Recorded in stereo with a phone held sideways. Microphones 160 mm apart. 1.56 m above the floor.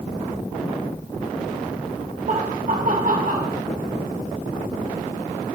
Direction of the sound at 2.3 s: 60° right (ahead or behind).